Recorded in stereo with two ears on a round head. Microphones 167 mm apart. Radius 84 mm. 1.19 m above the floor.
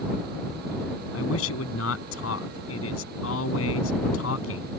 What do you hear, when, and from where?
1.1 s a man speaking: 85° left